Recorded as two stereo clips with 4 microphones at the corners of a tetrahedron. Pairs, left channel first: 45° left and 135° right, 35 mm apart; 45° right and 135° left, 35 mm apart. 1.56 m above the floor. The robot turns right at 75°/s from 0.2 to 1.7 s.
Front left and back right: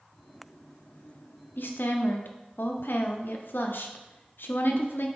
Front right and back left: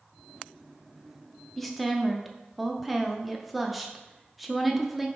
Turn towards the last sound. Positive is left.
turn(degrees=45)